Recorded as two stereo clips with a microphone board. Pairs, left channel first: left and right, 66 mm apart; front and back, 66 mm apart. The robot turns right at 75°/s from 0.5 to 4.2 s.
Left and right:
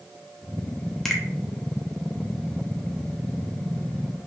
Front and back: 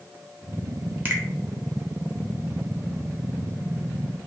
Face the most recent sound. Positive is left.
turn(degrees=45)